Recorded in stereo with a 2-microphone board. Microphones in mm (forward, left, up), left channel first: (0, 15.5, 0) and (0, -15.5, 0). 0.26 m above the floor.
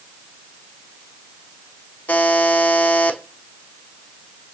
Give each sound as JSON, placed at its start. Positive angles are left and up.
{"t": 2.1, "sound": "a buzzer", "side_deg": 70, "distance_m": 0.5}